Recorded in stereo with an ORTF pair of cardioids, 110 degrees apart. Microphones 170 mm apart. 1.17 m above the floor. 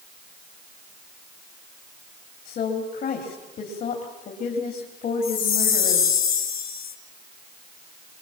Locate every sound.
2.5 s a woman speaking: 55° left, 3.5 m
5.2 s a chime: 60° left, 2 m